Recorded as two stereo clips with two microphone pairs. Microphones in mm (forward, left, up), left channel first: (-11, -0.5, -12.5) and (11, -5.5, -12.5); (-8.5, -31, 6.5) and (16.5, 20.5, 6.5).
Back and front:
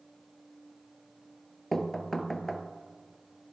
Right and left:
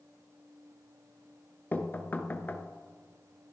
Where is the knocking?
130° right, 0.9 m.